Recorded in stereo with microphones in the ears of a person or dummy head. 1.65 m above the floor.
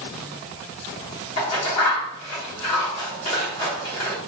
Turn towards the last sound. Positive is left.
turn(degrees=40)  # may be behind; listen again after turning